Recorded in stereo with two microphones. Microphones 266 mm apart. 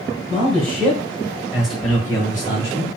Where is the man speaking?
30° right (ahead or behind), 1.8 m; by 2.9 s 25° left (ahead or behind), 1.7 m.